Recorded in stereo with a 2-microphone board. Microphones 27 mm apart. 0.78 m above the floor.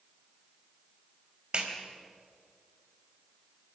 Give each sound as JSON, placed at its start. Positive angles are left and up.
{"t": 1.5, "sound": "a clap", "side_deg": -40, "distance_m": 3.5}